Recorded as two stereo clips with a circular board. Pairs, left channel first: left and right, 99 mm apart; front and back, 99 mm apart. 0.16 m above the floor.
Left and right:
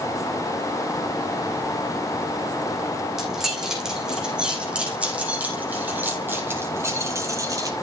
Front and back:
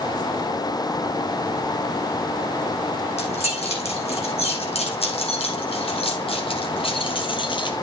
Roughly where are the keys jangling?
Ahead.